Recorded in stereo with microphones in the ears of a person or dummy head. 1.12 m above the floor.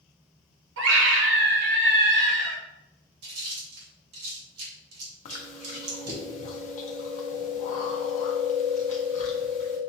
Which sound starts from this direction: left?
Chewing, at 5.2 s.